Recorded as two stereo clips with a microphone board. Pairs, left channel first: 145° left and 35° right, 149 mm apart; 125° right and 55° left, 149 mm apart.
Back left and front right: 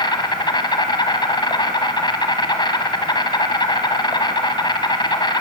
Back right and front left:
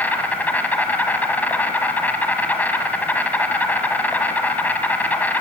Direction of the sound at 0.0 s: 165° left.